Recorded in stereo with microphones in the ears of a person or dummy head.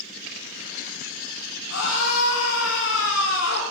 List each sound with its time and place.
1.7 s a scream: 80° left, 2.5 m; by 3.6 s 85° left, 3.5 m